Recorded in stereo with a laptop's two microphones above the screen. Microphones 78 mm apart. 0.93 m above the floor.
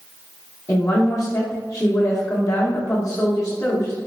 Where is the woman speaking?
45° left (ahead or behind), 0.9 m.